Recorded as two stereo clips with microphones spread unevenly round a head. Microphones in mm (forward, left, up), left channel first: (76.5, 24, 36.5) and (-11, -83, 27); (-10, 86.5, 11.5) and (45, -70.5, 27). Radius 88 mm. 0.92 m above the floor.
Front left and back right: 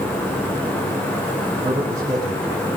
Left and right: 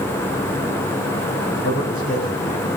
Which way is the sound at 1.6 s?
150° left.